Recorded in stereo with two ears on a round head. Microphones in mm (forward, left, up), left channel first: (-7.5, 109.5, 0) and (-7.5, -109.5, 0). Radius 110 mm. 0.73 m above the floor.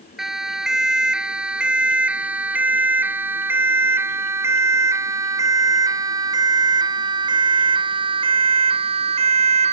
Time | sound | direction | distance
0.2 | a siren | centre (ahead or behind) | ?